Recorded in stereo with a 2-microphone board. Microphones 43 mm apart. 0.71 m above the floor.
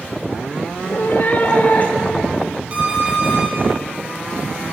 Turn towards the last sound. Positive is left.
turn(degrees=-35)  # may be behind; listen again after turning